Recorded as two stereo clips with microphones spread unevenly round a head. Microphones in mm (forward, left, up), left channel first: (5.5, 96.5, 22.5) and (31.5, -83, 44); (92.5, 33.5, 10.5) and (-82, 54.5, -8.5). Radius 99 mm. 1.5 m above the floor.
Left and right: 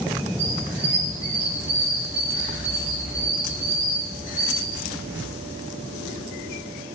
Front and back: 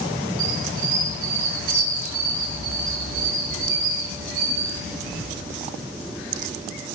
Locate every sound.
0.4 s a squeak: 165° right, 9 m